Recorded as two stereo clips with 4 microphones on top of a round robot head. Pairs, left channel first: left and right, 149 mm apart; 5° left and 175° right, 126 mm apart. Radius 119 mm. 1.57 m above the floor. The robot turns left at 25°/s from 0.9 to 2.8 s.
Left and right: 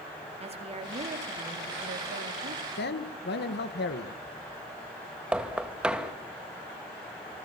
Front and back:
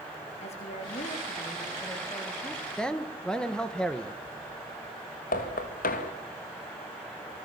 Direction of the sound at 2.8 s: 90° left.